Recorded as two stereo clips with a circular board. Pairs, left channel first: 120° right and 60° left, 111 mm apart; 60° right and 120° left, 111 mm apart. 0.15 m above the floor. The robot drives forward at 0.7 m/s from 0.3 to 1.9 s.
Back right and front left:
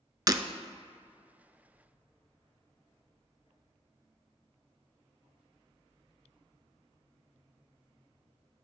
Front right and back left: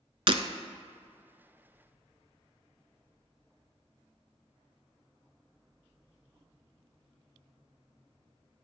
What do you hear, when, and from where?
0.3 s breaking glass: 105° left, 0.7 m; by 0.4 s 110° left, 0.7 m